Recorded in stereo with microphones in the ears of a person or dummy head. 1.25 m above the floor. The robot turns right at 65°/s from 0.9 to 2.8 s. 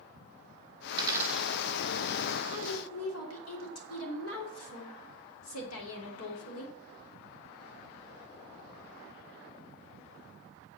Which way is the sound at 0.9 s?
30° right (ahead or behind).